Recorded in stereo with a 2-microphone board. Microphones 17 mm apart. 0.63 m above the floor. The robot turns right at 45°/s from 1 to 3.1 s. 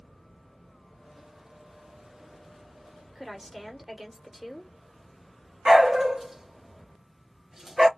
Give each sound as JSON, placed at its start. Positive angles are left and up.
{"t": 3.1, "sound": "a woman speaking", "side_deg": -10, "distance_m": 1.4}
{"t": 5.7, "sound": "a dog barking", "side_deg": -35, "distance_m": 0.7}